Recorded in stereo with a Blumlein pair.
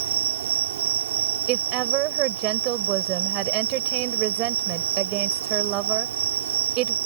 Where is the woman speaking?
40° right.